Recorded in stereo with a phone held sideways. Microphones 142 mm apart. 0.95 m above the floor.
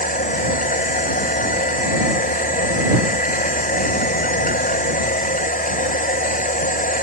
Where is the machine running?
75° left (ahead or behind).